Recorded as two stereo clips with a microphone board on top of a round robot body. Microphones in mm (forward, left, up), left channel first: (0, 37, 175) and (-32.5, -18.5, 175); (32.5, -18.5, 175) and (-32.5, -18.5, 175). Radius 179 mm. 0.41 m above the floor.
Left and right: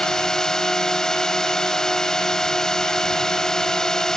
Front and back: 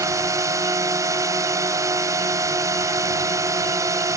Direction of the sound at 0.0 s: 140° left.